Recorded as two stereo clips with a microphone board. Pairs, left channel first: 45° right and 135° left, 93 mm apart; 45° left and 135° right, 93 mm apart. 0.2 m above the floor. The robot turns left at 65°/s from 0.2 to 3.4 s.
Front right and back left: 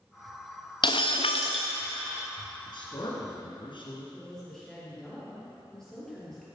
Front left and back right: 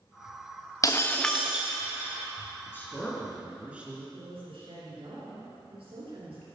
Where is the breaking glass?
10° right, 1.2 m; by 1.7 s 65° right, 1.2 m.